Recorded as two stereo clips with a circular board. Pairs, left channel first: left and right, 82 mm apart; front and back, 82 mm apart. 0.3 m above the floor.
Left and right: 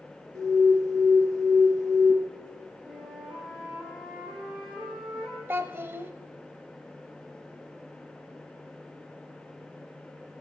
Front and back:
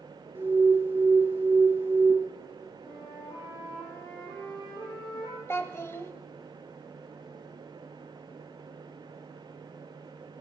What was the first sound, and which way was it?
An alarm, 120° right.